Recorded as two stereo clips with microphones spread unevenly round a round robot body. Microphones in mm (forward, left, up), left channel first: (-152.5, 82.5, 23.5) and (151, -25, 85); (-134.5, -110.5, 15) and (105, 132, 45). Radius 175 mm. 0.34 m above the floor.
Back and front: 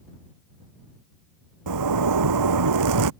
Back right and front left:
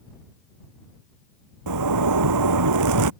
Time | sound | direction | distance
1.7 | a zipper | 5° left | ?